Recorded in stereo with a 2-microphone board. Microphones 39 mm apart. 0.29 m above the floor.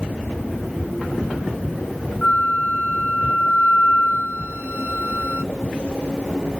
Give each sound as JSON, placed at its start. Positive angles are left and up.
{"t": 2.2, "sound": "a flute", "side_deg": 40, "distance_m": 0.8}